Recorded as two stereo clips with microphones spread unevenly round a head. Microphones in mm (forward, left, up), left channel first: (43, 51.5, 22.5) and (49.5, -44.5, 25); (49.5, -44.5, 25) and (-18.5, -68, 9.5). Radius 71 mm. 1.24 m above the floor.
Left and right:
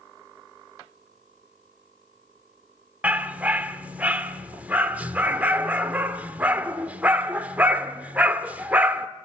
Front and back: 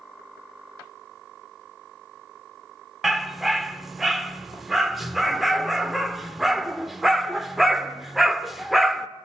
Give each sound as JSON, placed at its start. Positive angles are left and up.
{"t": 3.0, "sound": "a dog barking", "azimuth_deg": -40, "distance_m": 0.9}